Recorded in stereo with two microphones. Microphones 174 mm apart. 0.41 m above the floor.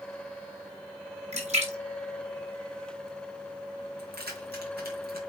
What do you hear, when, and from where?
1.3 s a splash: 45° right (ahead or behind), 3.5 m
4.0 s keys jangling: 75° right (ahead or behind), 3.5 m